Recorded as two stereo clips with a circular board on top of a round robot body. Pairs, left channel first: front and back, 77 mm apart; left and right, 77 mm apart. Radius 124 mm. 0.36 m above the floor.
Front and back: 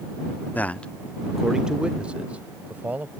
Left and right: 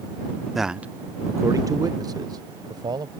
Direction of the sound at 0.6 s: 5° right.